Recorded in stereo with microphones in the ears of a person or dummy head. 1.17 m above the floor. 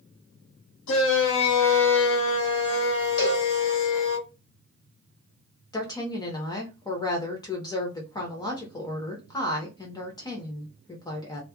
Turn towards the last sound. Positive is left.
turn(degrees=25)  # may be behind; listen again after turning